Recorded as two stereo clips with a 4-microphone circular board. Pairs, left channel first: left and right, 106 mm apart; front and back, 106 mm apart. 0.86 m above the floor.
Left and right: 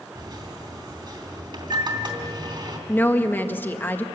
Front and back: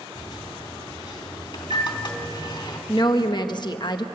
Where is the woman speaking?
25° left, 1.1 m.